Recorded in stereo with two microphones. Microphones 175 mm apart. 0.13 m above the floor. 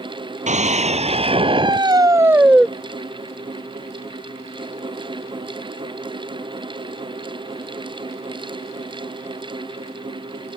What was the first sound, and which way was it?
A scream, 45° right (ahead or behind).